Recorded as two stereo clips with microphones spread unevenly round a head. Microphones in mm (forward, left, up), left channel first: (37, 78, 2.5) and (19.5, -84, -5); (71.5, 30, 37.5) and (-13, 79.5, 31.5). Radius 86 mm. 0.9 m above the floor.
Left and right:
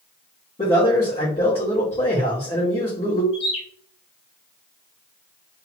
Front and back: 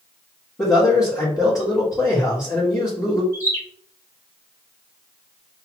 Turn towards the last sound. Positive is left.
turn(degrees=30)